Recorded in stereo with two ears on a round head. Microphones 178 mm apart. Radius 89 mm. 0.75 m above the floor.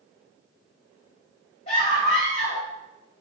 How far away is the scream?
About 3.5 m.